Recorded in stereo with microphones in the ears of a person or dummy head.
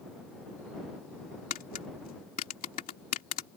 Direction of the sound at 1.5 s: 45° left (ahead or behind).